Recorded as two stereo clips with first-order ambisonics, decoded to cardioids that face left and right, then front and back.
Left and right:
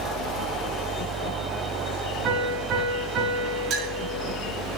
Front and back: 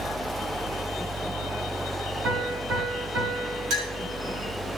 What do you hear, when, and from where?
2.2 s a piano: 140° right, 6.5 m
3.7 s a clink: 140° right, 5 m